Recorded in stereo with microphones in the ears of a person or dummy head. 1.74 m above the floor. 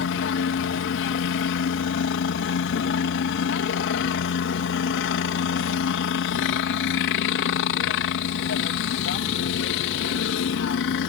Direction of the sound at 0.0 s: 65° left (ahead or behind).